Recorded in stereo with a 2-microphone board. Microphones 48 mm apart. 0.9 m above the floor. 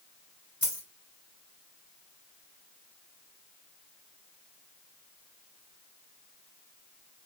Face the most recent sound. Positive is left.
turn(degrees=-25)  # may be behind; listen again after turning